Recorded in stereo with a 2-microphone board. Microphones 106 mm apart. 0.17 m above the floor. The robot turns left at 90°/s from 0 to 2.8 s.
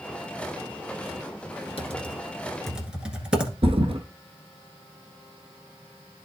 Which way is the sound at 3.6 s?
60° right (ahead or behind).